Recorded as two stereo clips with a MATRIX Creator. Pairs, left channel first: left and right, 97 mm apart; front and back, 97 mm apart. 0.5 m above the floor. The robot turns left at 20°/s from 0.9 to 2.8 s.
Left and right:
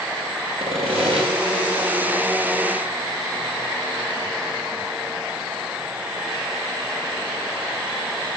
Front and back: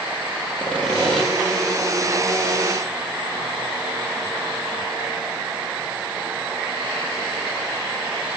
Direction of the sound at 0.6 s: 80° right.